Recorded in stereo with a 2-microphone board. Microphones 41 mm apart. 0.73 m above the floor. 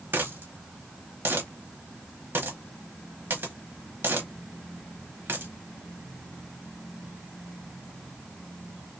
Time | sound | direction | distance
0.1 | a dropped coin | 55° right (ahead or behind) | 0.9 m